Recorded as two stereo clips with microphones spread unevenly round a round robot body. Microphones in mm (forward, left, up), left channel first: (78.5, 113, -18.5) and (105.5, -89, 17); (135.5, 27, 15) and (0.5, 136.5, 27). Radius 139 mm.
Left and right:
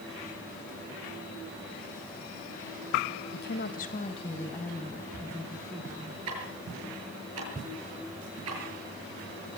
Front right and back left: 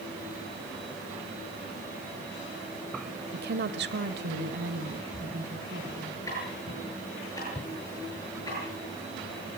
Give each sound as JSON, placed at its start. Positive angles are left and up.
{"t": 3.3, "sound": "a woman speaking", "azimuth_deg": 125, "distance_m": 2.0}
{"t": 6.3, "sound": "ticking", "azimuth_deg": -115, "distance_m": 7.5}